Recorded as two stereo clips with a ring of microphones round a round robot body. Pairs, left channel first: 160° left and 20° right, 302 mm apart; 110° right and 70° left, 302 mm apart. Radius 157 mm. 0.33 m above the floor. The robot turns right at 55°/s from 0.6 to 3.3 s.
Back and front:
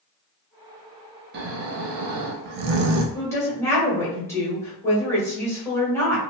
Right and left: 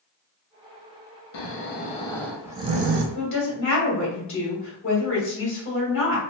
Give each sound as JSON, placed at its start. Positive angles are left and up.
{"t": 1.3, "sound": "snoring", "azimuth_deg": -75, "distance_m": 0.6}
{"t": 3.1, "sound": "a woman speaking", "azimuth_deg": -135, "distance_m": 1.5}